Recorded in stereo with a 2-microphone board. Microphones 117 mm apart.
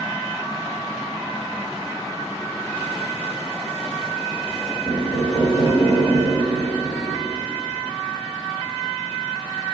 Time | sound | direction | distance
4.8 | knocking | 40° left (ahead or behind) | 1.2 m